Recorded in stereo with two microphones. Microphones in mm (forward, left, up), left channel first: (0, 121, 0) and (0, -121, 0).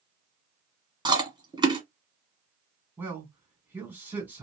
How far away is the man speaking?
About 1.8 m.